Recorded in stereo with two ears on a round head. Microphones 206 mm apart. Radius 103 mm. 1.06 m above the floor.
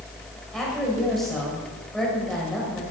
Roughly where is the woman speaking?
Centre.